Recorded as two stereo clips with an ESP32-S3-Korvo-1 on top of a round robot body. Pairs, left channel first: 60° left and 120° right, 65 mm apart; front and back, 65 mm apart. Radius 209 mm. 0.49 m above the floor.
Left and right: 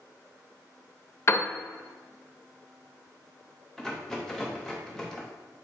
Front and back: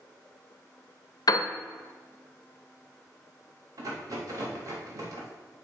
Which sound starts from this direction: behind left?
A rattle, at 3.8 s.